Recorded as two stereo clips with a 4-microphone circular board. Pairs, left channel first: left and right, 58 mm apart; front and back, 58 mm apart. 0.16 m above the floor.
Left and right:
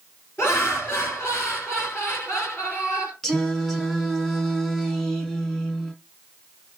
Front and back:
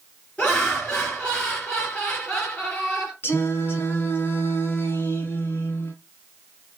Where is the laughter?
70° left, 2.5 m.